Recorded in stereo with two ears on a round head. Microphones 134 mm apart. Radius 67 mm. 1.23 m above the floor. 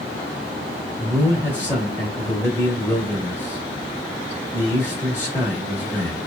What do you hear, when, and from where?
1.0 s a man speaking: 10° left (ahead or behind), 1.3 m